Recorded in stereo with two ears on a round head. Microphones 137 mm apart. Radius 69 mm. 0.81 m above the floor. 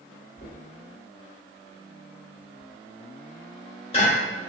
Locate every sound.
0.4 s knocking: 40° left (ahead or behind), 1.3 m